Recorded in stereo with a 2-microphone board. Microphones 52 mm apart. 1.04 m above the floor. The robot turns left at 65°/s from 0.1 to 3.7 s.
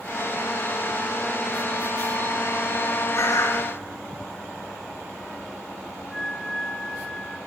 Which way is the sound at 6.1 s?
10° left (ahead or behind).